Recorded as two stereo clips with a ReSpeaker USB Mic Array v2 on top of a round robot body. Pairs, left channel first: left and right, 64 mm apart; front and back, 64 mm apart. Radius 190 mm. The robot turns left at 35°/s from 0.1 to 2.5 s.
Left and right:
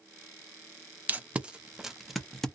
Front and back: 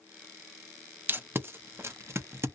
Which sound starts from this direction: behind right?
Tape being pulled, at 1.1 s.